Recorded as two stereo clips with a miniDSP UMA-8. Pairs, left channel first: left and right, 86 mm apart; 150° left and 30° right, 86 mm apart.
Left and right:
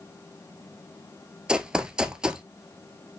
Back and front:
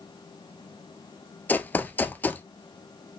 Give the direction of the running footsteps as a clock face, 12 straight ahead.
5 o'clock.